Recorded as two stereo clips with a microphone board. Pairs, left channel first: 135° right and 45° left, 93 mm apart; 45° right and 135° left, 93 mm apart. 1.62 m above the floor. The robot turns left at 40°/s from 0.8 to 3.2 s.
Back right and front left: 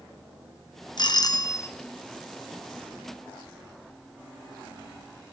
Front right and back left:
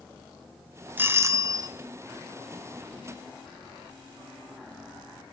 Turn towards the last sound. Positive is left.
turn(degrees=110)